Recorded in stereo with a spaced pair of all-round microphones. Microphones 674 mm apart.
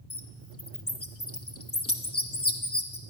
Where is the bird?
20° left (ahead or behind), 0.9 m.